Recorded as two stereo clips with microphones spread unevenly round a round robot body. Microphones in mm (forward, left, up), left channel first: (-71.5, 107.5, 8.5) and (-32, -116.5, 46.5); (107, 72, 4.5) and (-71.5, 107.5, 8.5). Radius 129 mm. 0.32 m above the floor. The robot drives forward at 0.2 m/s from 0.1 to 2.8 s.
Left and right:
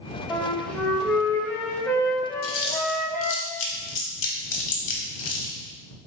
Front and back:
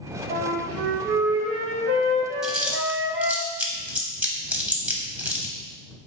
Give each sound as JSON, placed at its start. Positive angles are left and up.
{"t": 0.3, "sound": "a flute", "azimuth_deg": 180, "distance_m": 0.6}
{"t": 2.4, "sound": "chewing", "azimuth_deg": 80, "distance_m": 1.0}